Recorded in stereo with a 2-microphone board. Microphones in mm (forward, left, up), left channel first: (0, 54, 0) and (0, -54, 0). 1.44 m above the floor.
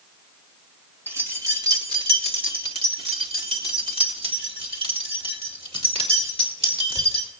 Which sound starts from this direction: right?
Keys jangling, at 1.1 s.